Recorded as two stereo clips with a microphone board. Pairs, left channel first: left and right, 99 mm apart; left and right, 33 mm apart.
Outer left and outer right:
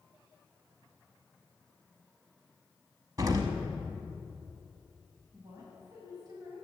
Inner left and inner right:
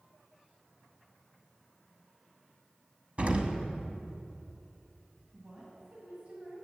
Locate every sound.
3.2 s an explosion: 40° right (ahead or behind), 0.8 m
5.3 s a woman speaking: 40° right (ahead or behind), 2 m